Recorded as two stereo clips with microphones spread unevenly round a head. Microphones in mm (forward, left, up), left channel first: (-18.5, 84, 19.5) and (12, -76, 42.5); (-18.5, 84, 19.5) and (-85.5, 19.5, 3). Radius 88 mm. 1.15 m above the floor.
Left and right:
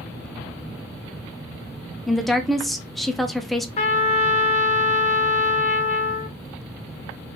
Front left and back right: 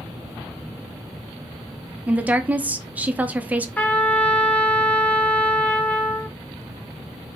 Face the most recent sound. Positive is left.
turn(degrees=120)